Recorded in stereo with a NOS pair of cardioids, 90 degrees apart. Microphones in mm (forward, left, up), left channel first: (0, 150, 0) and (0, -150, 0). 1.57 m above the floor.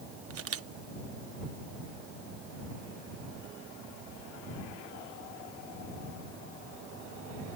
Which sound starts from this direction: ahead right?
A camera shutter, at 0.3 s.